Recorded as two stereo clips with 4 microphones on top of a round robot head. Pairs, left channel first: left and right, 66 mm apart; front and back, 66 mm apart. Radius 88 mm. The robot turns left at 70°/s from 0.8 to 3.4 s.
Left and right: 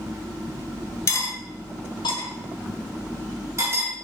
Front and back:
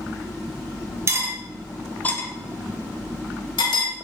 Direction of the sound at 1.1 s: 135° left.